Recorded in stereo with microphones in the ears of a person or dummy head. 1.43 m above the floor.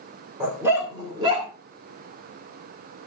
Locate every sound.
0.4 s a dog barking: 15° right (ahead or behind), 1.9 m; by 1.5 s 35° right (ahead or behind), 2 m